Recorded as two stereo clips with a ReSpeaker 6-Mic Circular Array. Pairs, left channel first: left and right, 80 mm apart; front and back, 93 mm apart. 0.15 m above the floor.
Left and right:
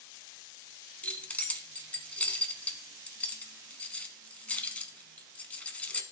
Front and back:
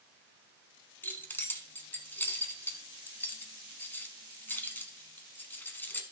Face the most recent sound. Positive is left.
turn(degrees=35)